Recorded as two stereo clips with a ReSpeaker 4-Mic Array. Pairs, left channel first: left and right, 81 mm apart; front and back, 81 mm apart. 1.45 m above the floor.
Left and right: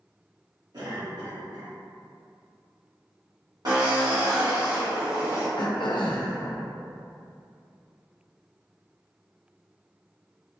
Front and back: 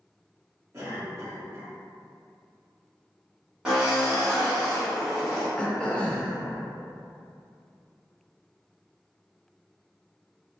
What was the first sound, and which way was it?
A cough, 125° right.